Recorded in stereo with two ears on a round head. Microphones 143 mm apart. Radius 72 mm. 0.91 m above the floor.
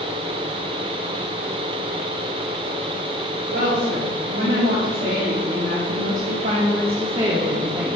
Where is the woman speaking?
65° right (ahead or behind), 2.5 m; by 8.0 s 10° right (ahead or behind), 1.1 m.